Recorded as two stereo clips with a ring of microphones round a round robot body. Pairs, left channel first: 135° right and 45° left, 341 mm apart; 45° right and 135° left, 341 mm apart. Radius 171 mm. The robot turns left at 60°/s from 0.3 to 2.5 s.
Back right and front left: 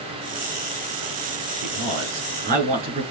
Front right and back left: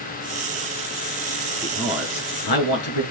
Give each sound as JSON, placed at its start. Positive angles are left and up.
{"t": 1.6, "sound": "a man speaking", "azimuth_deg": 30, "distance_m": 6.0}